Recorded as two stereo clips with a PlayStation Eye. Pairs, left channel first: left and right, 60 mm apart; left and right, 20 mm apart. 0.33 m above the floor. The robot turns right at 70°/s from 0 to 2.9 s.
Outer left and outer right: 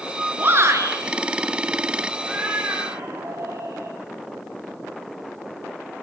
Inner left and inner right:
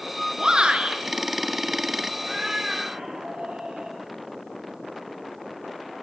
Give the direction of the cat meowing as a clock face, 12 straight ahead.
6 o'clock.